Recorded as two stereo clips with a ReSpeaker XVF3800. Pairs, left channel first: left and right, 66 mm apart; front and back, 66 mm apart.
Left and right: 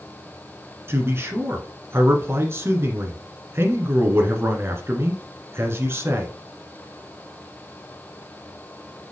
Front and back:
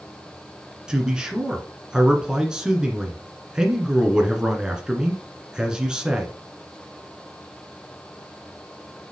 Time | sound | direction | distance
0.9 | a man speaking | 110° right | 1.6 m